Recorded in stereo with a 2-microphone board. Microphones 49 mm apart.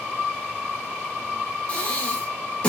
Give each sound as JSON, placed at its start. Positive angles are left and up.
{"t": 1.7, "sound": "breathing", "side_deg": 25, "distance_m": 1.1}